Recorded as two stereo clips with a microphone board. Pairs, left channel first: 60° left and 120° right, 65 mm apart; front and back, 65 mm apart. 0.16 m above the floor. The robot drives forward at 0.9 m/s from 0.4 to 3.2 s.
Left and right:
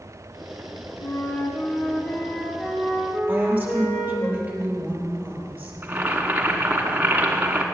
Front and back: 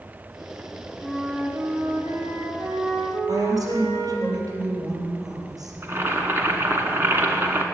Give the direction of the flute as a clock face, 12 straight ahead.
9 o'clock.